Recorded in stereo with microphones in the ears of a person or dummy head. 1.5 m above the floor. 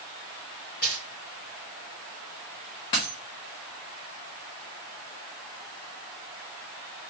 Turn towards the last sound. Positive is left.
turn(degrees=20)  # may be behind; listen again after turning